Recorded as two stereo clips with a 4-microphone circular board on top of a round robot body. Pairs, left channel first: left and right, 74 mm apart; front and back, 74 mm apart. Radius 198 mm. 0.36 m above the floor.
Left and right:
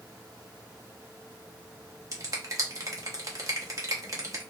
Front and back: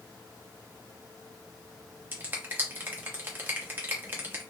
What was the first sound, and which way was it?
A finger snap, 125° right.